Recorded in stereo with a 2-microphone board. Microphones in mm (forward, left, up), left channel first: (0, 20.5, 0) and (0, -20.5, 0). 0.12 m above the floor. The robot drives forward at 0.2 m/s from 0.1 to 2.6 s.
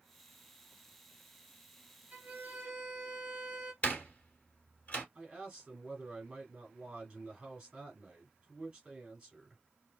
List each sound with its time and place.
2.1 s a violin: 40° right (ahead or behind), 1.4 m; by 3.7 s 35° right (ahead or behind), 1.4 m
3.8 s a door slam: 35° left (ahead or behind), 1.5 m
5.2 s a man speaking: 20° right (ahead or behind), 1.4 m